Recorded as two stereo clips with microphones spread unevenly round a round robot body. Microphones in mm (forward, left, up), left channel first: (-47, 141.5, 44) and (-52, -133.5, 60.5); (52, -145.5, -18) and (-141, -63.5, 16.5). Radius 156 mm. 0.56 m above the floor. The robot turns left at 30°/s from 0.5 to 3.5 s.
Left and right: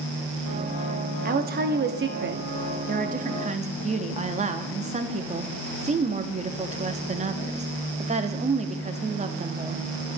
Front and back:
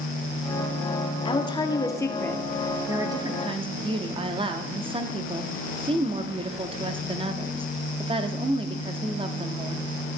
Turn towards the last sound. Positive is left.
turn(degrees=-140)